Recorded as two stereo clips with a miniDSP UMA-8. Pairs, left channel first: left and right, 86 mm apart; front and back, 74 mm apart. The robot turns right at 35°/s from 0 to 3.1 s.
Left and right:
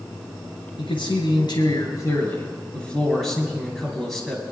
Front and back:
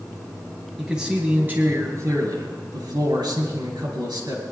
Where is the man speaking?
90° left, 4 m; by 4.4 s 170° left, 4 m.